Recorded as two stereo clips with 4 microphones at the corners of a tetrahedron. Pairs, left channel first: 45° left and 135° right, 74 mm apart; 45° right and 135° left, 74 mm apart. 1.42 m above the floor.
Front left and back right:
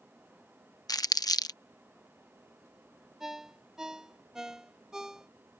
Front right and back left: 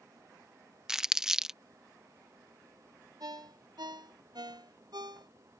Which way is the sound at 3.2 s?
145° left.